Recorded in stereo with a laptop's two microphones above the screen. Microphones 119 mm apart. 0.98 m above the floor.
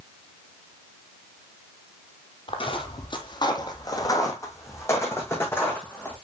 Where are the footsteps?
50° left (ahead or behind), 1.4 m; by 6.1 s 15° left (ahead or behind), 3.5 m.